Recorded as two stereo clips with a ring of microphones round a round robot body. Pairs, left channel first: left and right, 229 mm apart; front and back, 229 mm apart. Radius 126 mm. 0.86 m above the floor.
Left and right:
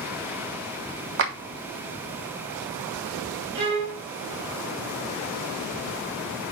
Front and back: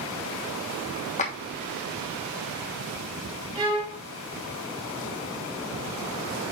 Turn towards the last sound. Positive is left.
turn(degrees=-110)